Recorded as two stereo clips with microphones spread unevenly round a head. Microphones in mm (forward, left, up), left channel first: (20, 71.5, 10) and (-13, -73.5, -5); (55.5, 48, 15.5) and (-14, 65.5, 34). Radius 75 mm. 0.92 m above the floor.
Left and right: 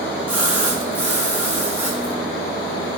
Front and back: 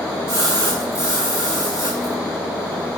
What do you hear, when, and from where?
0.3 s a splash: straight behind, 9 m